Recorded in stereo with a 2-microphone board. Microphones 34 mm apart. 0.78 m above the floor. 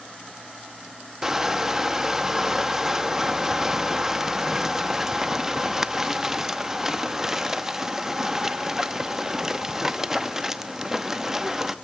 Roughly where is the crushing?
Centre.